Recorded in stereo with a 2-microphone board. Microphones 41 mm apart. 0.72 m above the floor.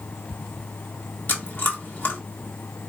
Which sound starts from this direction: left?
Chewing, at 1.3 s.